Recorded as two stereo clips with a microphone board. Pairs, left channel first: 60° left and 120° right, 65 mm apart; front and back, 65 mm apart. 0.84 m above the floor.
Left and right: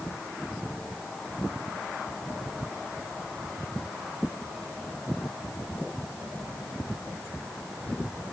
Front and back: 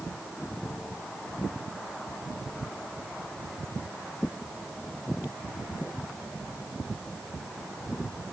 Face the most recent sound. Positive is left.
No sound to turn to.